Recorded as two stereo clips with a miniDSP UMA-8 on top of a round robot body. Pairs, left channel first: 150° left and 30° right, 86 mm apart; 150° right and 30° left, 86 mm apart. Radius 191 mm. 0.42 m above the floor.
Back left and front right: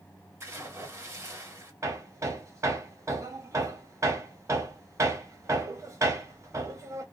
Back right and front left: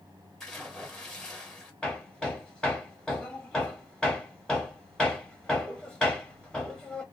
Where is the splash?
70° right, 1.6 m.